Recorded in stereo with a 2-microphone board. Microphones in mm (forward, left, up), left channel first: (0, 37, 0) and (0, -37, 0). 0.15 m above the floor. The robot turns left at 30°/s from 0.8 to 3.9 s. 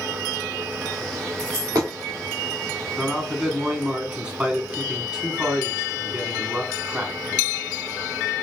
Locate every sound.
1.4 s a dropped coin: 60° right (ahead or behind), 1.9 m; by 1.9 s 45° right (ahead or behind), 1.9 m
3.0 s a man speaking: 5° right (ahead or behind), 1.0 m; by 7.6 s 15° right (ahead or behind), 1.0 m